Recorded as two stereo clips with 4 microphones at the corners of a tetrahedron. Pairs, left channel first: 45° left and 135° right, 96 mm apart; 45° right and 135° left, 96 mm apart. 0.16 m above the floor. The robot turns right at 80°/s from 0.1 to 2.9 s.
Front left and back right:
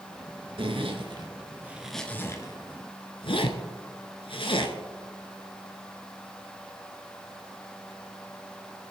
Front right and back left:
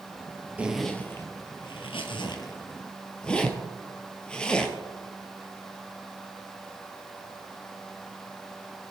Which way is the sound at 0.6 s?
150° right.